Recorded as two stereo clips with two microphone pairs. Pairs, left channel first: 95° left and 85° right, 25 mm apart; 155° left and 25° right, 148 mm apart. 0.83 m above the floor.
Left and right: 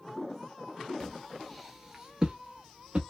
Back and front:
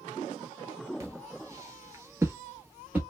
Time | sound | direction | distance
1.0 | footsteps | 30° left | 0.9 m